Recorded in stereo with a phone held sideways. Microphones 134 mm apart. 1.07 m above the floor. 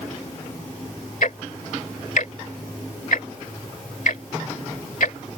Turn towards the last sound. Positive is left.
turn(degrees=75)  # may be behind; listen again after turning